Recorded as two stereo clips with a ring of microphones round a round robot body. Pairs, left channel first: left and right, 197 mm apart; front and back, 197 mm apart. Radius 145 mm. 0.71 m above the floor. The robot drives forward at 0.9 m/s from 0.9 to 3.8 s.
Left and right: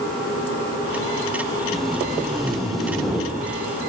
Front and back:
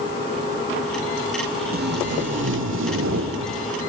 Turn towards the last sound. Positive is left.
turn(degrees=180)